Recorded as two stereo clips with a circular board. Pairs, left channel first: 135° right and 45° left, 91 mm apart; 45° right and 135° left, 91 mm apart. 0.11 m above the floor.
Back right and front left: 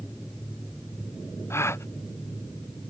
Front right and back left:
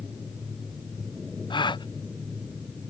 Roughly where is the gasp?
Right.